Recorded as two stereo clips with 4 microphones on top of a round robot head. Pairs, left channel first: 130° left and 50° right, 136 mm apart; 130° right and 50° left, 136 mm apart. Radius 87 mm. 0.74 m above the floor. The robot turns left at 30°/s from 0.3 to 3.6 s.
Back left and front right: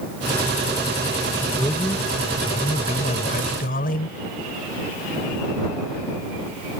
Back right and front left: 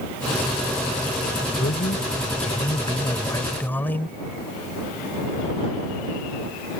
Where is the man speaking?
150° right; by 4.2 s 150° left.